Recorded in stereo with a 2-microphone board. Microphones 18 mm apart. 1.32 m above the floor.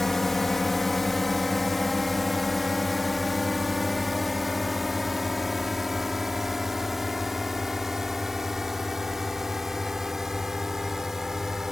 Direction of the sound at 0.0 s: 15° left (ahead or behind).